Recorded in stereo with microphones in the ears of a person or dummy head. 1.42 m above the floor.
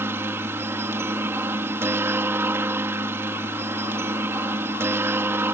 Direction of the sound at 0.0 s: 5° right (ahead or behind).